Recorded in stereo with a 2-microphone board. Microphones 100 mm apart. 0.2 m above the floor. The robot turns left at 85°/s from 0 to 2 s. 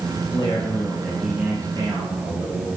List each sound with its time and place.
0.2 s a man speaking: 80° left, 3 m; by 2.7 s 75° right, 3 m